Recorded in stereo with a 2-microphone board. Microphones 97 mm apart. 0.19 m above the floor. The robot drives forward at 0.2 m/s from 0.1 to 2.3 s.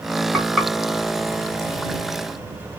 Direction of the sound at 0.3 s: Centre (ahead or behind).